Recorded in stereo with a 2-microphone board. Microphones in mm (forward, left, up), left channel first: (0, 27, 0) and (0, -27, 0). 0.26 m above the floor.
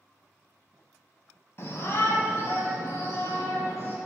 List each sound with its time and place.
1.6 s a shout: 45° left (ahead or behind), 1.8 m; by 4.0 s 50° left (ahead or behind), 4 m